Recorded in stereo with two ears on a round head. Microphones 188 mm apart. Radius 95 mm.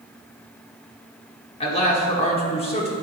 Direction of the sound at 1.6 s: 30° left (ahead or behind).